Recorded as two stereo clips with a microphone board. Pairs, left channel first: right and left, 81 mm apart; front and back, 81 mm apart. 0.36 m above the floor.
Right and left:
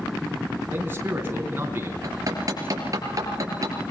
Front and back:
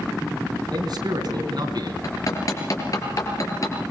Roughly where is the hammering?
Ahead left.